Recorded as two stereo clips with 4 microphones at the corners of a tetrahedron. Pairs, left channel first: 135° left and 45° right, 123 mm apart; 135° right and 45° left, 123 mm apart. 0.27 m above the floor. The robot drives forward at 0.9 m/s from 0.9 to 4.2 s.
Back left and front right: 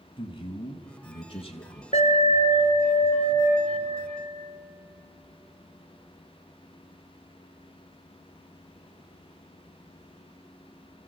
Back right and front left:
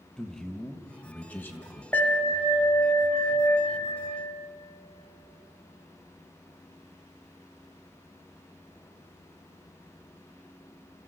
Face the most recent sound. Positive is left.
turn(degrees=170)